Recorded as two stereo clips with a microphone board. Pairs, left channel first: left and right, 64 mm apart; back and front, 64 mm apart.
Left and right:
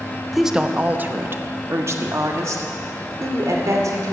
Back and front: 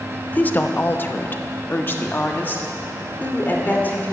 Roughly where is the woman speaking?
Behind.